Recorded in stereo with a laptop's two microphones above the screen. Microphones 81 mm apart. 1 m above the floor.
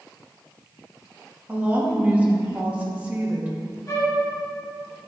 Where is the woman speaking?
20° right (ahead or behind), 1.7 m.